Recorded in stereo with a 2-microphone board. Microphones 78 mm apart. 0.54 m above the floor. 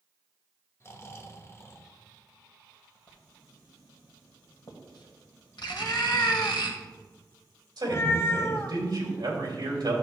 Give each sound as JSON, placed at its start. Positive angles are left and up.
{"t": 0.8, "sound": "snoring", "side_deg": 35, "distance_m": 0.9}
{"t": 3.1, "sound": "writing", "side_deg": 80, "distance_m": 1.6}
{"t": 5.7, "sound": "a cat meowing", "side_deg": 35, "distance_m": 0.6}
{"t": 7.8, "sound": "a man speaking", "side_deg": -60, "distance_m": 2.5}